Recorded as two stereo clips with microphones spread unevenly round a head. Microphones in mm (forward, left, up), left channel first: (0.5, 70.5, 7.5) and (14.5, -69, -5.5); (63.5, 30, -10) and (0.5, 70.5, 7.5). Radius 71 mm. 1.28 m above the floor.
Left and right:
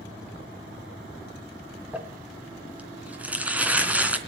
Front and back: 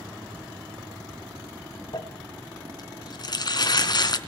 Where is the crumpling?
Straight ahead, 3 m.